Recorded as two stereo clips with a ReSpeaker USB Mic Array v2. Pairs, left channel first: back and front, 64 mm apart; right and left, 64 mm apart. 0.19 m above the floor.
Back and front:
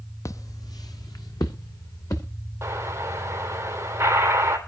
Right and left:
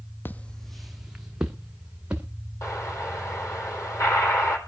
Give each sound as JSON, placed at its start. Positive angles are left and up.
{"t": 0.2, "sound": "footsteps", "azimuth_deg": -145, "distance_m": 0.5}
{"t": 2.6, "sound": "an explosion", "azimuth_deg": -50, "distance_m": 3.5}